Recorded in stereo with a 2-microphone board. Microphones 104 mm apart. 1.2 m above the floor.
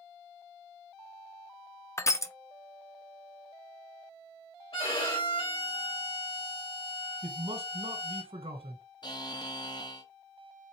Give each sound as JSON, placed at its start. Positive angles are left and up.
{"t": 2.0, "sound": "crushing", "side_deg": 25, "distance_m": 0.5}
{"t": 4.7, "sound": "a violin", "side_deg": 60, "distance_m": 2.5}
{"t": 7.2, "sound": "a man speaking", "side_deg": -65, "distance_m": 1.3}
{"t": 9.0, "sound": "a buzzer", "side_deg": 40, "distance_m": 0.7}